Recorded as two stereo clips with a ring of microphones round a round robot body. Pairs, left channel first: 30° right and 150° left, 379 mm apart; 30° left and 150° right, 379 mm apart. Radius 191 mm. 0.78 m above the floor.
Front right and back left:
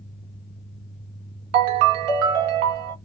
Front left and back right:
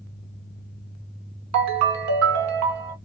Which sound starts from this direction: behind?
A ringtone, at 1.5 s.